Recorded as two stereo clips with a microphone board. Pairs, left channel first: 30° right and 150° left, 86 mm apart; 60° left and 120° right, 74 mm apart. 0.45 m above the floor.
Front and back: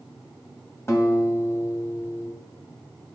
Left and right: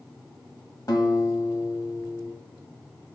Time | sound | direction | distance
0.9 | a guitar | 25° left | 1.6 m